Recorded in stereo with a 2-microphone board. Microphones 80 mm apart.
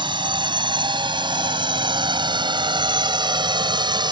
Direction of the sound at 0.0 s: 80° right.